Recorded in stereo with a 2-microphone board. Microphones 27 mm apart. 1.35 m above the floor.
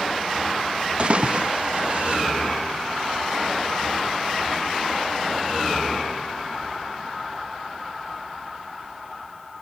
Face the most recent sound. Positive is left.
turn(degrees=-45)  # may be behind; listen again after turning